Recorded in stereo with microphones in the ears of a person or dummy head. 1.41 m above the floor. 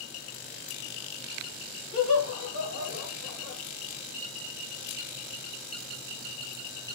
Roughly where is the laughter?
Left.